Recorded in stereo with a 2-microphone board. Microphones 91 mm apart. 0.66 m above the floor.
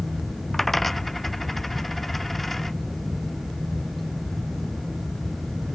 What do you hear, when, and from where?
0.5 s a dropped coin: centre (ahead or behind)